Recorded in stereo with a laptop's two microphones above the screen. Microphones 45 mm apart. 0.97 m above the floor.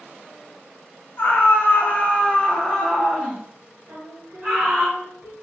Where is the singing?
55° right (ahead or behind), 1.1 m.